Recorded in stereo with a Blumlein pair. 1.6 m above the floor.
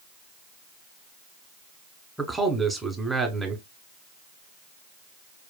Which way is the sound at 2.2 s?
5° right.